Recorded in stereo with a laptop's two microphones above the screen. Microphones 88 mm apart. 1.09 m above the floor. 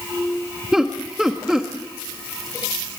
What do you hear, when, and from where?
0.7 s laughter: 5° right (ahead or behind), 1.3 m